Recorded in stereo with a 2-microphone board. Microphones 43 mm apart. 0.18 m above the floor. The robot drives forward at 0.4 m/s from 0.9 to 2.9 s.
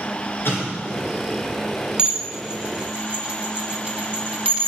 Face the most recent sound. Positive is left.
turn(degrees=-25)  # may be behind; listen again after turning